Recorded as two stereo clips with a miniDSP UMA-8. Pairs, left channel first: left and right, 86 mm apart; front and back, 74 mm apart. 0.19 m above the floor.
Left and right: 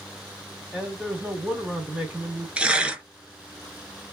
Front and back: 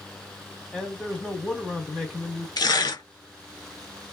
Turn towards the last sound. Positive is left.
turn(degrees=-15)